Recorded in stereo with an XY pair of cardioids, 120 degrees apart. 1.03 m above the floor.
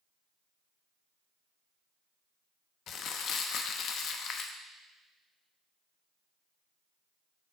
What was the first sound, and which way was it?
Crumpling, 60° left.